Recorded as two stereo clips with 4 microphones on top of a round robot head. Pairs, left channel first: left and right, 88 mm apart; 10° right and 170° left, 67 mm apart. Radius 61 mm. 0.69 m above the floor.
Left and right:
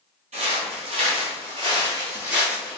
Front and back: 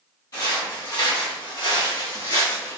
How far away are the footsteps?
About 1.3 m.